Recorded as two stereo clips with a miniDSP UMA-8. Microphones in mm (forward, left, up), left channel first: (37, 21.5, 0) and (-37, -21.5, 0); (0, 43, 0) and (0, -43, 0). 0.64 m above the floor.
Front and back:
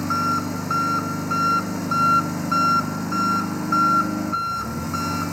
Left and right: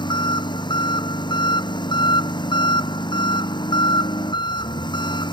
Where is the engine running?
120° left.